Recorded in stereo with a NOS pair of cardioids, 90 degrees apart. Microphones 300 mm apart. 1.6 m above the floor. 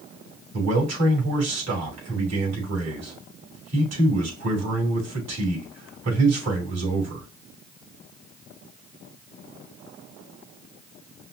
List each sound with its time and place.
0.5 s a man speaking: 60° right, 3.5 m